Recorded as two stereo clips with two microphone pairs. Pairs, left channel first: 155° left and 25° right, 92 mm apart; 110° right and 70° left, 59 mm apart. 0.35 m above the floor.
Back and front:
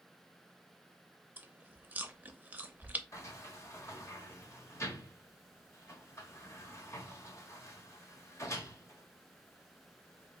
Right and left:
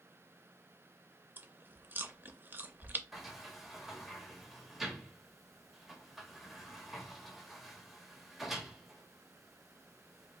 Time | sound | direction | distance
1.4 | chewing | 35° left | 0.5 m
3.1 | a sliding door | 155° left | 0.9 m